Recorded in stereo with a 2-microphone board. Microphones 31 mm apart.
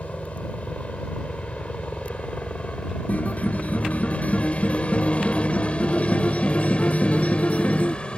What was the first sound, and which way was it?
A helicopter, 45° left (ahead or behind).